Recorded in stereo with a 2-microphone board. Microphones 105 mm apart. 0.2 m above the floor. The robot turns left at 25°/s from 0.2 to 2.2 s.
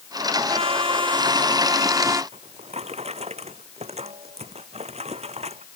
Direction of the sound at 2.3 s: 85° right.